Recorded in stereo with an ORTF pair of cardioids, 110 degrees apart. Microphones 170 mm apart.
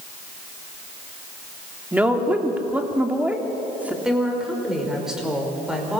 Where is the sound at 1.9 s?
10° right, 3 m.